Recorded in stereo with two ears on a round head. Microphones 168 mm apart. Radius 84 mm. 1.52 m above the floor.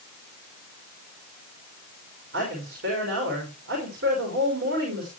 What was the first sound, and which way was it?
A woman speaking, 60° right (ahead or behind).